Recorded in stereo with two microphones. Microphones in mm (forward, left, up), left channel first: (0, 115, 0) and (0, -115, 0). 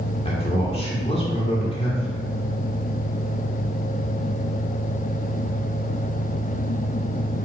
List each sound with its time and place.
0.2 s a man speaking: 25° left (ahead or behind), 1.4 m